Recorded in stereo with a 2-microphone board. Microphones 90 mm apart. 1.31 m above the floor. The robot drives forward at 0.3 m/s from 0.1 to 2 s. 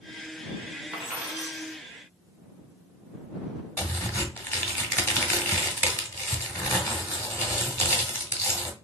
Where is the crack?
25° left (ahead or behind), 1.2 m.